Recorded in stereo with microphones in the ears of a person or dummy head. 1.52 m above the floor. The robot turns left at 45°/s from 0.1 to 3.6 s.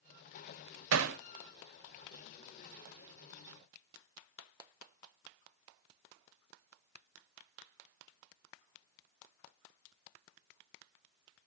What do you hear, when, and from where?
0.9 s hammering: 75° right (ahead or behind), 0.6 m; by 1.2 s 65° right (ahead or behind), 0.6 m